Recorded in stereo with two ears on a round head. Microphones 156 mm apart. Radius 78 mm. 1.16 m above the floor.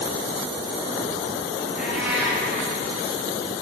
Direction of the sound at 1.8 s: 5° right (ahead or behind).